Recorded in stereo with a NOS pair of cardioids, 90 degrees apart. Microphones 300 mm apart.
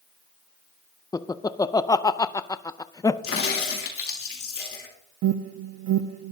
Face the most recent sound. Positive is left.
turn(degrees=-65)